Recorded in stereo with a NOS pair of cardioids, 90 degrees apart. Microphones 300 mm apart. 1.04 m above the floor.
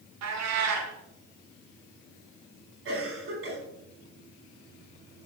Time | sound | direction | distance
0.2 | a cat meowing | 60° right | 1.8 m
2.9 | a cough | 45° right | 4.5 m